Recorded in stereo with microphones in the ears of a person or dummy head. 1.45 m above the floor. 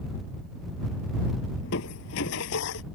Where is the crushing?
60° left (ahead or behind).